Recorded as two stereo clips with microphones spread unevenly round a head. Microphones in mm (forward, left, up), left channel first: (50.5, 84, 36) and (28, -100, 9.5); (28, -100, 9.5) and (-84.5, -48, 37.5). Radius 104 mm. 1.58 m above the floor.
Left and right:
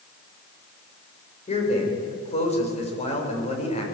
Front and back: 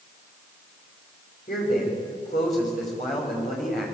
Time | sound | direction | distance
1.5 | a man speaking | 25° left | 7 m